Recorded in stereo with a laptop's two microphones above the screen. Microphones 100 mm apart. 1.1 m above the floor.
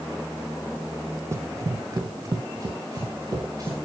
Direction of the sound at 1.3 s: 30° right (ahead or behind).